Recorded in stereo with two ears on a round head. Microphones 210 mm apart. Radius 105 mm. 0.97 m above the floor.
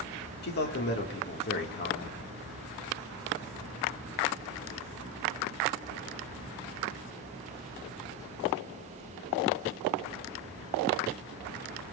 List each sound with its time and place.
0.4 s a man speaking: 45° left (ahead or behind), 2.5 m